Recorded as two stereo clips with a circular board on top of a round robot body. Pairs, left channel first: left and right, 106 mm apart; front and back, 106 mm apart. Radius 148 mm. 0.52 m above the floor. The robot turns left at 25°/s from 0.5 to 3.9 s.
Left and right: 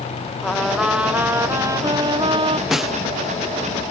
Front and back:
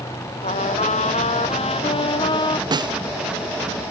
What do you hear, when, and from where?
0.4 s a trumpet: straight ahead; by 2.6 s 50° right
2.7 s a snare drum: 175° right; by 3.0 s straight behind